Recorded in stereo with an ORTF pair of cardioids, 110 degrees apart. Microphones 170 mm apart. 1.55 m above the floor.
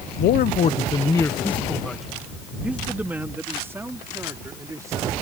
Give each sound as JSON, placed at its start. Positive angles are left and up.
{"t": 0.2, "sound": "a man speaking", "azimuth_deg": 70}